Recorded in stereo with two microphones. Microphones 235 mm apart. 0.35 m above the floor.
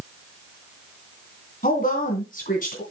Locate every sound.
1.6 s a woman speaking: 40° left (ahead or behind), 2.5 m